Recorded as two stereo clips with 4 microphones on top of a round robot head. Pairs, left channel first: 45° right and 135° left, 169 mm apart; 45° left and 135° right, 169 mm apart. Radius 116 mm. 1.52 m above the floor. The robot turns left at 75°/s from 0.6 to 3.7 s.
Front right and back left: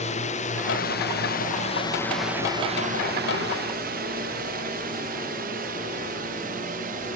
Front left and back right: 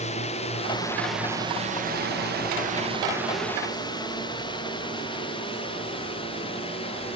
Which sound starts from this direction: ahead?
A drone, at 0.0 s.